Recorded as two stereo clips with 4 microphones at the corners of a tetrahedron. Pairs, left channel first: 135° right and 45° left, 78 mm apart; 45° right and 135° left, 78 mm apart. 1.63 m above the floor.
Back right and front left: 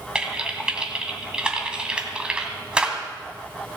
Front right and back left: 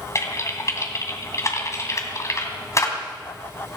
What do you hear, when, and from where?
0.1 s typing on a keyboard: 25° right, 1.9 m